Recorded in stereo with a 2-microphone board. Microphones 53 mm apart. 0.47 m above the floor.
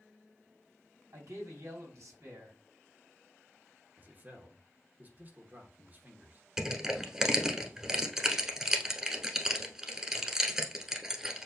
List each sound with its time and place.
1.1 s a man speaking: 70° right (ahead or behind), 3 m
4.0 s a man speaking: 35° right (ahead or behind), 1.0 m
6.6 s crushing: 10° right (ahead or behind), 0.9 m